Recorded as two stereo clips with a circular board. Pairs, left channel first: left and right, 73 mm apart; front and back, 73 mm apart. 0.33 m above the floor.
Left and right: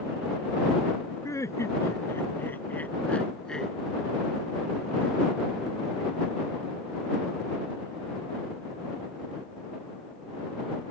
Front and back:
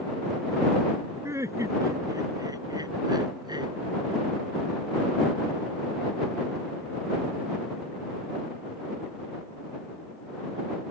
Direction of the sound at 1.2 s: 130° left.